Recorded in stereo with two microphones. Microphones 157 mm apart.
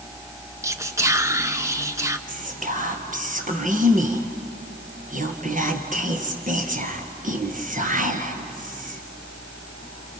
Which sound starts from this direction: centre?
Whispering, at 0.6 s.